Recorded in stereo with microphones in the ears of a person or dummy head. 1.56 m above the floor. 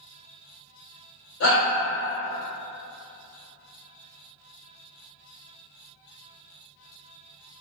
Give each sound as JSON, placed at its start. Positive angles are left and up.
{"t": 1.4, "sound": "a shout", "side_deg": 80, "distance_m": 1.3}